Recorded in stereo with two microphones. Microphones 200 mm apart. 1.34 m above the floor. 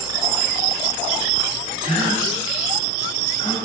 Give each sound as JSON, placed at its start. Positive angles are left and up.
{"t": 1.8, "sound": "a gasp", "side_deg": 25, "distance_m": 0.9}